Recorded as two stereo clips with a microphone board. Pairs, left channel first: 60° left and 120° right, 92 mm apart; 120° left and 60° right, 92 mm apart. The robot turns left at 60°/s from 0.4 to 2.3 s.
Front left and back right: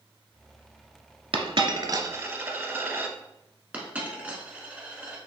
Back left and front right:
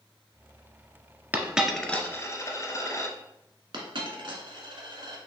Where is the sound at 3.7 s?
50° right, 1.1 m.